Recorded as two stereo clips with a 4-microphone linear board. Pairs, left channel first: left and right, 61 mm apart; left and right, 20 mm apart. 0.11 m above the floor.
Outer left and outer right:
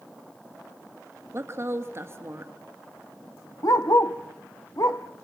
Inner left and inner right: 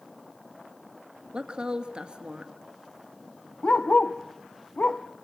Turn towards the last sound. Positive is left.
turn(degrees=70)  # may be behind; listen again after turning